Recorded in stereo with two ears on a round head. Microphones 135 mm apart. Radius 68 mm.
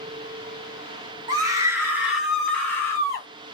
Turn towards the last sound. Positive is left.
turn(degrees=25)  # may be behind; listen again after turning